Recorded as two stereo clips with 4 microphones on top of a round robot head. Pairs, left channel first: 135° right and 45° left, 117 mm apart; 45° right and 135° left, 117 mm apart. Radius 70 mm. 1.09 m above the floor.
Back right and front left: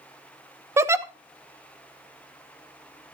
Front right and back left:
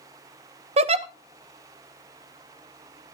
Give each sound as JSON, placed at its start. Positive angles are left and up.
{"t": 0.8, "sound": "a giggle", "azimuth_deg": 110, "distance_m": 0.9}